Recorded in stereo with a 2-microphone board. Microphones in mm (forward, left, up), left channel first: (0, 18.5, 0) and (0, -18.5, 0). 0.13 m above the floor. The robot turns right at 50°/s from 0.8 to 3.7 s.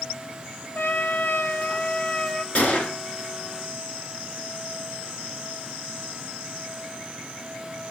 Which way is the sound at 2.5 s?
40° left (ahead or behind).